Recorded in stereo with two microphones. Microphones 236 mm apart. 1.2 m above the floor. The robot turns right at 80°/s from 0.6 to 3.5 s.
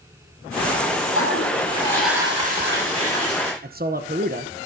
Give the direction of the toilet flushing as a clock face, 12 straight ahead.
8 o'clock.